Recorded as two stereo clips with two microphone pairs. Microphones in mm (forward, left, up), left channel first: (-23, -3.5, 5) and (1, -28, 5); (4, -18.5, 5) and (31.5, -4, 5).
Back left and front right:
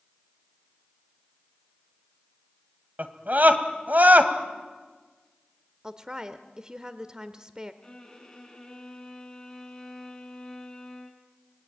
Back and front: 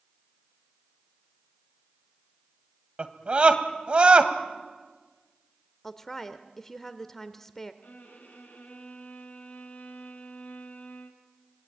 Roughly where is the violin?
Behind right.